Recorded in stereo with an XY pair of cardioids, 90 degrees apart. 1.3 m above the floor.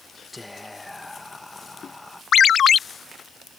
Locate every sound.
0.3 s whispering: 15° left
2.3 s a ringtone: 65° left